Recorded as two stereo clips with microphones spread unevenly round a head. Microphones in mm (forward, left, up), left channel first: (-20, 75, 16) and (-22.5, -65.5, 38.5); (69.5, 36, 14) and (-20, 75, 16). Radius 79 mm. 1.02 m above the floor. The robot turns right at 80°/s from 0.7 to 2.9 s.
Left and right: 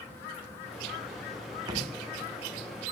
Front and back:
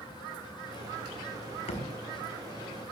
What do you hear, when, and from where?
1.7 s a thud: 25° right, 4 m; by 1.9 s 10° right, 4 m